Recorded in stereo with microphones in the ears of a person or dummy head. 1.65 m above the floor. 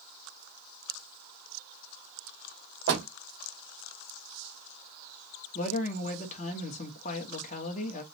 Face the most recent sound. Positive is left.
turn(degrees=45)  # may be behind; listen again after turning